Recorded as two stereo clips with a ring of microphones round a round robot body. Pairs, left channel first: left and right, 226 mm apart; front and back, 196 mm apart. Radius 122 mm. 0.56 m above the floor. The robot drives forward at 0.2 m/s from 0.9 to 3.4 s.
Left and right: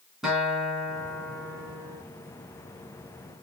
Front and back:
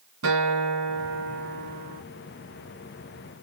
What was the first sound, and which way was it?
A guitar, straight behind.